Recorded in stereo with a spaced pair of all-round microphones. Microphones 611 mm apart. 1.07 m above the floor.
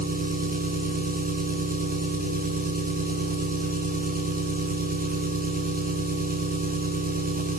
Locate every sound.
0.0 s an engine running: 15° right (ahead or behind), 6 m